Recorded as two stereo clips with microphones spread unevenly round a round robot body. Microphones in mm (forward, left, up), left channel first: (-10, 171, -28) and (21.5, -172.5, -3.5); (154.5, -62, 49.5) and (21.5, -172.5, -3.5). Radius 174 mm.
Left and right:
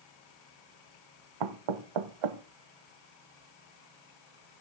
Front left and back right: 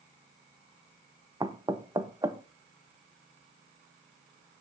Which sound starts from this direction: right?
Knocking, at 1.4 s.